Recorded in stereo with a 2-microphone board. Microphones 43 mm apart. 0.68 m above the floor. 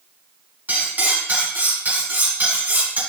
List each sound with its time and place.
0.7 s cutlery clinking: 50° right (ahead or behind), 3.5 m